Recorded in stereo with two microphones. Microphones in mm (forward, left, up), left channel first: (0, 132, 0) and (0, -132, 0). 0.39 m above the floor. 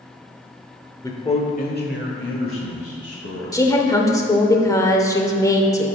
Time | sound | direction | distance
1.0 | a man speaking | 15° left (ahead or behind) | 0.9 m
3.5 | a woman speaking | 15° left (ahead or behind) | 0.9 m